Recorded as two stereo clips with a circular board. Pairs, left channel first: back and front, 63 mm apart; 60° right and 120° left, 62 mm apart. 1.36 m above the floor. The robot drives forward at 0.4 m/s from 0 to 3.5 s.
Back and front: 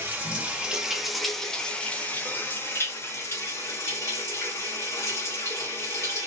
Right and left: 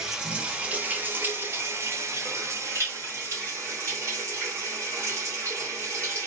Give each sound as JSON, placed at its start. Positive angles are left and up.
{"t": 0.0, "sound": "running water", "azimuth_deg": 45, "distance_m": 0.9}